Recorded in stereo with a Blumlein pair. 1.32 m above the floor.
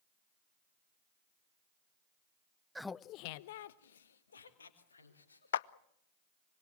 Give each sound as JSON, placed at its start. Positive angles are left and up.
{"t": 2.8, "sound": "laughter", "azimuth_deg": -5, "distance_m": 0.6}
{"t": 5.5, "sound": "a clap", "azimuth_deg": 60, "distance_m": 0.5}